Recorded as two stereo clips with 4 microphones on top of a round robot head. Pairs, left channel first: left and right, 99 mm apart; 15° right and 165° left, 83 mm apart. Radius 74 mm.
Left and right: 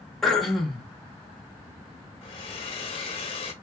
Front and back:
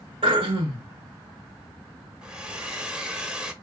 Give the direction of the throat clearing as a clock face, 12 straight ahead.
6 o'clock.